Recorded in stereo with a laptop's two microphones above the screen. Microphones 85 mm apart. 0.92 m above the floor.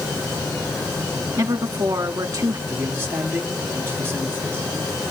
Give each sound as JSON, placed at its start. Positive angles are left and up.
{"t": 1.4, "sound": "a woman speaking", "side_deg": -55, "distance_m": 1.5}
{"t": 2.7, "sound": "a man speaking", "side_deg": -30, "distance_m": 7.0}